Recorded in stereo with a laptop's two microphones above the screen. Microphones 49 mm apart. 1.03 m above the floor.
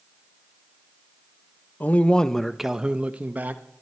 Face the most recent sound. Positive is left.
turn(degrees=-40)  # may be behind; listen again after turning